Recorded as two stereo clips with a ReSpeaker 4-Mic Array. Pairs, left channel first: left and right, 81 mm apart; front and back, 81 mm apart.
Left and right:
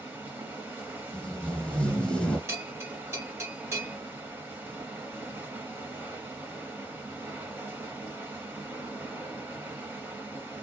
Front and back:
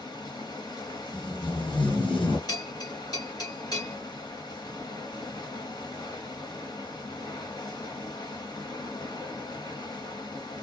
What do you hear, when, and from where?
0.0 s running water: 25° right, 1.3 m
1.1 s tape being pulled: 10° left, 1.0 m
2.5 s a bell: 35° right, 1.7 m